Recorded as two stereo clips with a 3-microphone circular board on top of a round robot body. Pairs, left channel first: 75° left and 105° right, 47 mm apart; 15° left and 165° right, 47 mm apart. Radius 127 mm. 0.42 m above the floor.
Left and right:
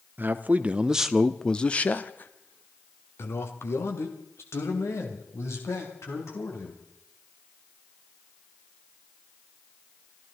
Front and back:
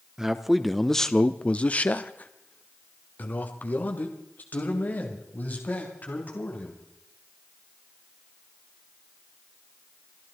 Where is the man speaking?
90° right, 1.0 m; by 6.8 s 65° left, 4 m.